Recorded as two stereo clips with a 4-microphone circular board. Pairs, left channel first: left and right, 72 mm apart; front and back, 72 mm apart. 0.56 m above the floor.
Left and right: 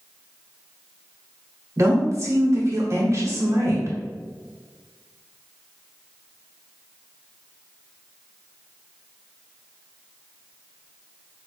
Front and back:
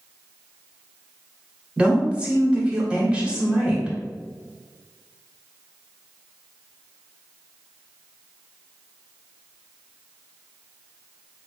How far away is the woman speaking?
About 1.5 m.